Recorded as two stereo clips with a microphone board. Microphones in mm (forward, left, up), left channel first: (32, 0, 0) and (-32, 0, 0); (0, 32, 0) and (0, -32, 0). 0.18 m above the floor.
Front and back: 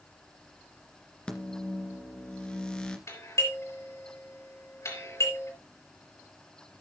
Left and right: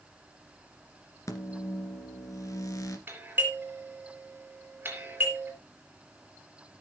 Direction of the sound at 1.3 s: 70° left.